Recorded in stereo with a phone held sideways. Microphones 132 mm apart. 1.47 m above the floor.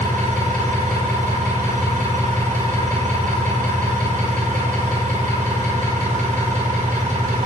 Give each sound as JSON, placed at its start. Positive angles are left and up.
{"t": 0.0, "sound": "an engine running", "side_deg": -85, "distance_m": 5.0}